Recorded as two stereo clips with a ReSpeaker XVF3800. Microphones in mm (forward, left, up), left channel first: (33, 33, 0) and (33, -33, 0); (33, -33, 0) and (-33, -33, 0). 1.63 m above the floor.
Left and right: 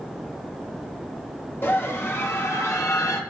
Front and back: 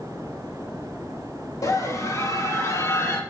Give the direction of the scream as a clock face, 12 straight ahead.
11 o'clock.